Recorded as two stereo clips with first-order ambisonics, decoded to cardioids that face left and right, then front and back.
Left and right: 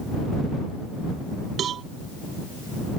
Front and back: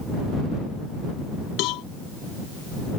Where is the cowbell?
30° right.